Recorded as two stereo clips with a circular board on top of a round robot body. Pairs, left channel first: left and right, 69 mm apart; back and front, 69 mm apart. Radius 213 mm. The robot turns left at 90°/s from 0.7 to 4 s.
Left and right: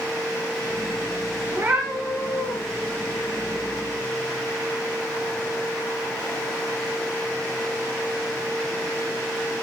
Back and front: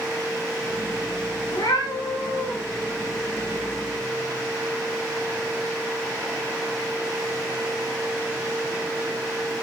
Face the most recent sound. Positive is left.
turn(degrees=-10)